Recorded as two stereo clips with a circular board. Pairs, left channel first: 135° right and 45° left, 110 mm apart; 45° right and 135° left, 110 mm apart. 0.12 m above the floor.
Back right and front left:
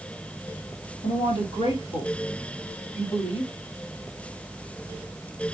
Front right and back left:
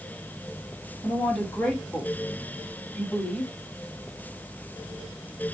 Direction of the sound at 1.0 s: 120° right.